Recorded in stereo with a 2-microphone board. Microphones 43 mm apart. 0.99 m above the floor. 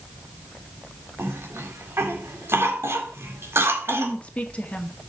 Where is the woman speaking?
30° left (ahead or behind), 1.7 m.